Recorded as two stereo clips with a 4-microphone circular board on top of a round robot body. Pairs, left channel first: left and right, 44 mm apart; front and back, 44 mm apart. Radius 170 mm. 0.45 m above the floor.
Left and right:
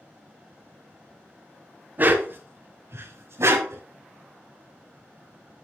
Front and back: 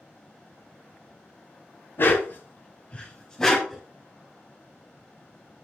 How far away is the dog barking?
About 1.6 m.